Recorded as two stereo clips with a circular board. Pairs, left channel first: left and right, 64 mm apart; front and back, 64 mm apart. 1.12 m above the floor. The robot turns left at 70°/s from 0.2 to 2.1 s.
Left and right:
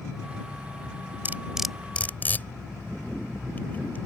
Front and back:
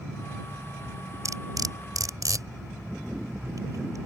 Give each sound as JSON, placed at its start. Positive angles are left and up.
{"t": 1.2, "sound": "cutlery clinking", "azimuth_deg": -145}